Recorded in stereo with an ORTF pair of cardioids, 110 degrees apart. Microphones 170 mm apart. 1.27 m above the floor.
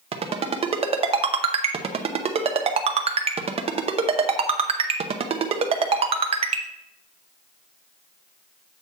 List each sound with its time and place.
0.1 s a ringtone: 35° right, 0.8 m